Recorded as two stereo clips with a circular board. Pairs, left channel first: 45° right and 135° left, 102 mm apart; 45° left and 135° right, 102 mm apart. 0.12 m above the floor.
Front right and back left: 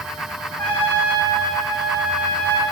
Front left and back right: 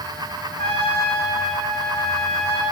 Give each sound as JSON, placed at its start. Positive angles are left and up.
{"t": 0.6, "sound": "a trumpet", "azimuth_deg": 30, "distance_m": 6.0}